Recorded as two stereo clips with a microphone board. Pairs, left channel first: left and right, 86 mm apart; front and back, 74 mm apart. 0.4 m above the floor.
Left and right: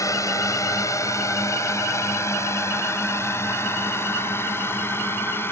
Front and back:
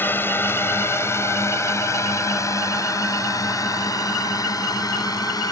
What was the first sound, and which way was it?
A drone, 55° left.